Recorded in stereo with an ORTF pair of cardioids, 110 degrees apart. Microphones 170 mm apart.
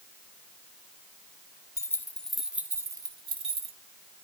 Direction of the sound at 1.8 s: 20° left.